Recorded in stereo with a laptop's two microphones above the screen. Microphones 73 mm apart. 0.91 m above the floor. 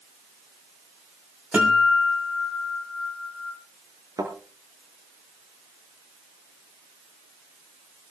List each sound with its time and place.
1.5 s a guitar: 15° right (ahead or behind), 5.5 m
4.2 s a thud: 60° right (ahead or behind), 6.5 m